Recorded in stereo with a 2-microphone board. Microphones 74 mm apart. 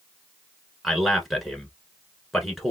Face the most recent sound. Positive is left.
turn(degrees=0)  # may be behind; listen again after turning